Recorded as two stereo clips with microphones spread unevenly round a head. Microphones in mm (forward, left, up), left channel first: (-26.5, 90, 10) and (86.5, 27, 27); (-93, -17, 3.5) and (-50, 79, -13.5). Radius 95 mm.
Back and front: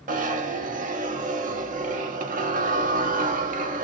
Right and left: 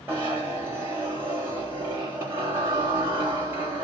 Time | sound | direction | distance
0.1 | a zipper | 10° right | 0.9 m